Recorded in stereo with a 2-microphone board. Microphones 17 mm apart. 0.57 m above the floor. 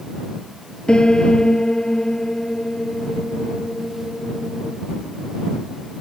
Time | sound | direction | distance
0.9 | a piano | 55° left (ahead or behind) | ?